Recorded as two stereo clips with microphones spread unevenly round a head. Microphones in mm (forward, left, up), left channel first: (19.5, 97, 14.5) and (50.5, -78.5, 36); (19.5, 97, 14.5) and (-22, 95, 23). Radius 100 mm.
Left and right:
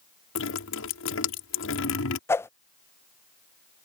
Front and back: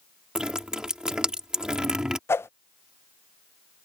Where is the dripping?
115° left.